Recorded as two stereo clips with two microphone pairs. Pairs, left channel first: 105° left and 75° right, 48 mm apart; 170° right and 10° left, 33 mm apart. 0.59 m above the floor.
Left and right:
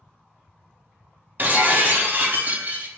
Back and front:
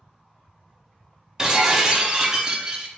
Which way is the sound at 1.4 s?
55° right.